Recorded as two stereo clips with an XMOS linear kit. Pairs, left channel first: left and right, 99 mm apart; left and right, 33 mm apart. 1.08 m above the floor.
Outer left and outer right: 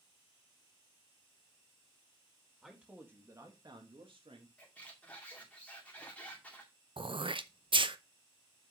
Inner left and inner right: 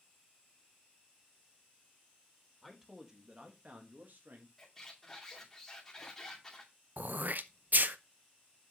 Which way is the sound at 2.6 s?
5° right (ahead or behind).